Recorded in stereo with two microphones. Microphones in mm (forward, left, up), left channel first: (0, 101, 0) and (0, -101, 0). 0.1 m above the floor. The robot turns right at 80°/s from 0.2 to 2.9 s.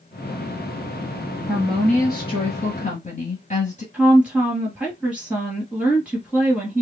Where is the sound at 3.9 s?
5° right (ahead or behind), 1.8 m.